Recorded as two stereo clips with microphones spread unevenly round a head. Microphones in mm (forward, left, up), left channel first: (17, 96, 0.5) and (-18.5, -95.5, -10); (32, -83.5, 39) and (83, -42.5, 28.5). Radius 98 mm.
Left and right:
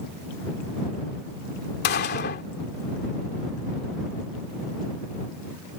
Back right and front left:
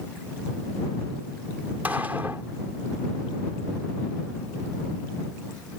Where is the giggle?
I don't hear a giggle.